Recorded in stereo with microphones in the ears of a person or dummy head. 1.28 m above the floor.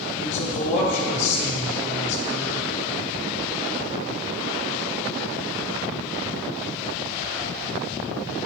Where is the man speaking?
35° left (ahead or behind), 1.8 m.